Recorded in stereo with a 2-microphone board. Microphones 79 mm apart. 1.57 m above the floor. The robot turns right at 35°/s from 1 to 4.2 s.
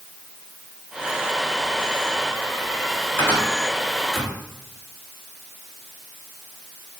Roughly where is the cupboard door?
Left.